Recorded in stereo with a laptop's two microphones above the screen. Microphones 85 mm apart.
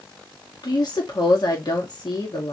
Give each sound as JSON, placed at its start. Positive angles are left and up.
{"t": 0.6, "sound": "a woman speaking", "side_deg": 55, "distance_m": 1.9}